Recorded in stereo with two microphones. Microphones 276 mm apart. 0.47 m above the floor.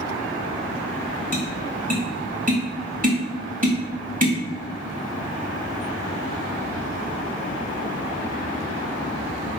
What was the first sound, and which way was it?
Tapping, 30° right (ahead or behind).